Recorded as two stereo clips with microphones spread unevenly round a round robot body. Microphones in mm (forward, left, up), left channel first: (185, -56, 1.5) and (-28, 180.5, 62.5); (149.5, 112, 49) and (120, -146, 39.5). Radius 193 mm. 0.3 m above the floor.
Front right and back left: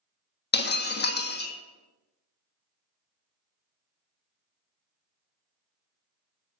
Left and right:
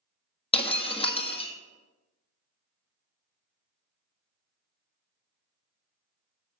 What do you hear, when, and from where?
0.5 s breaking glass: 15° left, 1.4 m